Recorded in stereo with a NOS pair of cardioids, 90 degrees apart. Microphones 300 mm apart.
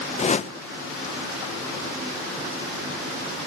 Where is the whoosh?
25° left, 0.8 m.